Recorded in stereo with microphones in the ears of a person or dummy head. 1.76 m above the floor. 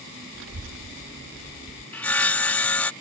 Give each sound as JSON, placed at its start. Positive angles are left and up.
{"t": 0.3, "sound": "a child speaking", "side_deg": -65}
{"t": 1.9, "sound": "sawing", "side_deg": 10}